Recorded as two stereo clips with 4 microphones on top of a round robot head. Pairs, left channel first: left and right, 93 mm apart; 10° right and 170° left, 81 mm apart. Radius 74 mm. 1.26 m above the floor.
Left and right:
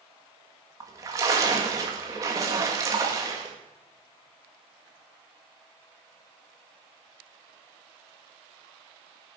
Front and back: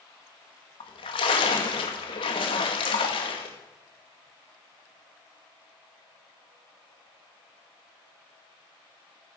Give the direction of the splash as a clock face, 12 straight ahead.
1 o'clock.